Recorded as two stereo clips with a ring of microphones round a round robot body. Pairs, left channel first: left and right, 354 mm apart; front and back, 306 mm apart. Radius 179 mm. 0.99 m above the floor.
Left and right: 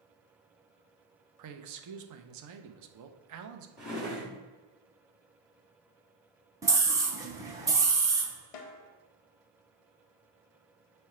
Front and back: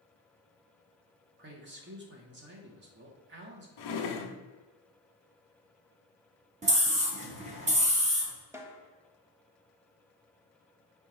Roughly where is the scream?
Behind.